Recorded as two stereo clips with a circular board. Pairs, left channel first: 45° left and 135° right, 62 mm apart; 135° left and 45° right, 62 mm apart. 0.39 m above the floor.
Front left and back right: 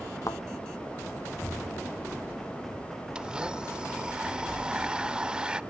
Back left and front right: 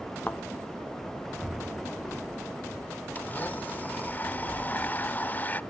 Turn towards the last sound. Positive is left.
turn(degrees=160)